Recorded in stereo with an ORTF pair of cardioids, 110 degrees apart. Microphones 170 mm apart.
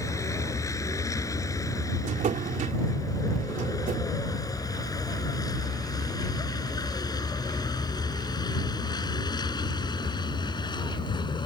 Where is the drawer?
50° right.